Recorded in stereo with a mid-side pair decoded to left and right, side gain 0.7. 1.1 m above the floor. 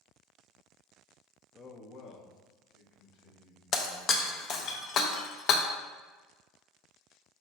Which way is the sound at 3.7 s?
45° left.